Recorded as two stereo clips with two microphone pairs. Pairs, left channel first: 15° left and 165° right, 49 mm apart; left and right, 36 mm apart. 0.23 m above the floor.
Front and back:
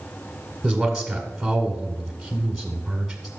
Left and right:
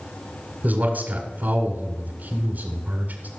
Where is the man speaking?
75° right, 1.7 m.